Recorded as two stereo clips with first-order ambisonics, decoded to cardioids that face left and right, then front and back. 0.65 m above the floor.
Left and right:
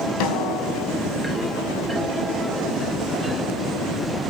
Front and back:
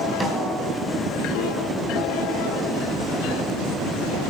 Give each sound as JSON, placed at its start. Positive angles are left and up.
{"t": 0.2, "sound": "a snare drum", "azimuth_deg": 100, "distance_m": 3.5}